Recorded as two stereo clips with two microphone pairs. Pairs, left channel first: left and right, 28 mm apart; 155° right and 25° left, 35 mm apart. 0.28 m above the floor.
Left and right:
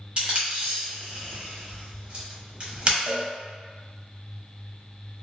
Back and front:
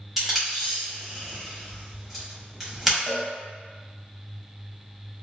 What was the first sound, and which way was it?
Tape being pulled, 60° right.